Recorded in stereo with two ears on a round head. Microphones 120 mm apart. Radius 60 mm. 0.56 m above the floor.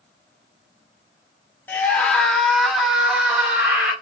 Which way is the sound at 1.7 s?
15° left (ahead or behind).